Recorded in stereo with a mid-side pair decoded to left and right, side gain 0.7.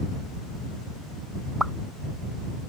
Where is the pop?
5° right.